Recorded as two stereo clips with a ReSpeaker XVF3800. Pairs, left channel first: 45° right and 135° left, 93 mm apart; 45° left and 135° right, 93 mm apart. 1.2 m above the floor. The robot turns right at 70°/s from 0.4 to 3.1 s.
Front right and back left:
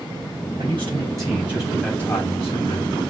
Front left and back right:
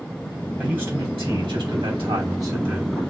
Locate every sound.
0.6 s a man speaking: 145° left, 3.5 m; by 3.0 s 45° right, 3.5 m